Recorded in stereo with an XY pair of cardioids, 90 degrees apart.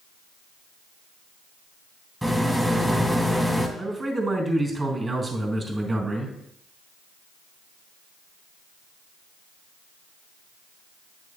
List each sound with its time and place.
2.2 s a rattle: 5° right, 1.9 m
3.8 s a man speaking: 30° right, 3 m